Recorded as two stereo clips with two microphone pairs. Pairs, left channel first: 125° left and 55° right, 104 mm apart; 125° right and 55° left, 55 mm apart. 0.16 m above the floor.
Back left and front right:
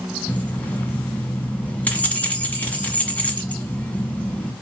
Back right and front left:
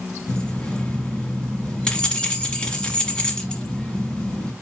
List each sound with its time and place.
0.3 s keys jangling: straight behind, 1.0 m